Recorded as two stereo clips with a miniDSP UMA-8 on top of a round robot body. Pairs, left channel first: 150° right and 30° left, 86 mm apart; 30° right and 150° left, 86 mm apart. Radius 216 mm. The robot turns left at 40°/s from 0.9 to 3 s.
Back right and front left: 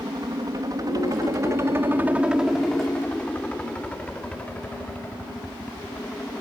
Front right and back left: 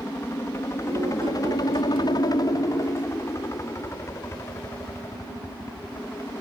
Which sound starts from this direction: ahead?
A helicopter, at 0.0 s.